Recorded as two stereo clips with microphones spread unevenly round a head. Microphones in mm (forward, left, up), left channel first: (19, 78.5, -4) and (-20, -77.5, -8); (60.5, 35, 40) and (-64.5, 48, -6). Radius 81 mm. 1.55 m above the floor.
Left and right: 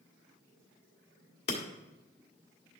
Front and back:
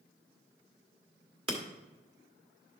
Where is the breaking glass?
125° left, 1.9 m.